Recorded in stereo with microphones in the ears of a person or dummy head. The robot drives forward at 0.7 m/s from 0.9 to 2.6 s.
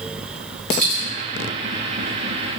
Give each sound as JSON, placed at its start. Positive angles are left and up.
{"t": 0.7, "sound": "a dropped coin", "side_deg": 5, "distance_m": 1.5}